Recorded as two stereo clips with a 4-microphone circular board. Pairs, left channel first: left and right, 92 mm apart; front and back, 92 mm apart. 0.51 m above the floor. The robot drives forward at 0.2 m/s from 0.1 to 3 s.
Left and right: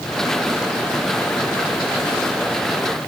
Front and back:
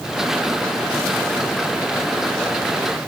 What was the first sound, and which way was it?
Only background noise.